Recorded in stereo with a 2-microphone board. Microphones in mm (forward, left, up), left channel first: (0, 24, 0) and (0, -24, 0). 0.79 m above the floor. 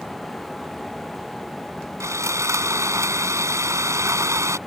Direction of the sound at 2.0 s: 85° right.